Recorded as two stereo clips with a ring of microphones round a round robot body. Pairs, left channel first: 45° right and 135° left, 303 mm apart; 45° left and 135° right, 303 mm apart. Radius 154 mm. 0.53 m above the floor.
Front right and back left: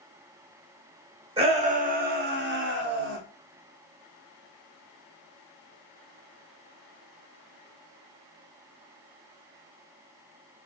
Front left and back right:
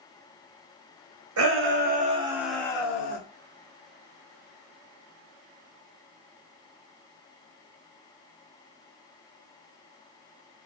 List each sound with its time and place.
1.4 s a shout: 160° right, 1.4 m; by 3.2 s 95° left, 1.3 m